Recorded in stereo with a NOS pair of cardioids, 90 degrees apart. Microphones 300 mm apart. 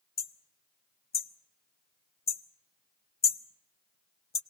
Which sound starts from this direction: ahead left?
Hammering, at 0.2 s.